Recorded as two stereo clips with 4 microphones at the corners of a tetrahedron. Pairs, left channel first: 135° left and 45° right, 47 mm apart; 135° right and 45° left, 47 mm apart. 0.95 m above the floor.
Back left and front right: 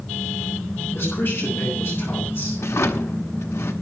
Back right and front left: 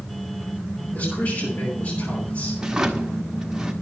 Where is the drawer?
120° left, 1.3 m.